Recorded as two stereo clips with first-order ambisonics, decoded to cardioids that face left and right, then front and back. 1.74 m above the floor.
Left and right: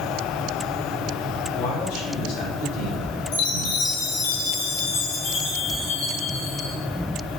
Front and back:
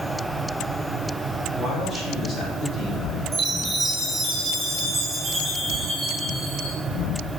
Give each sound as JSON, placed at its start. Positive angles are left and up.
{"t": 1.6, "sound": "a man speaking", "azimuth_deg": 65, "distance_m": 7.5}
{"t": 3.3, "sound": "a chime", "azimuth_deg": 100, "distance_m": 5.5}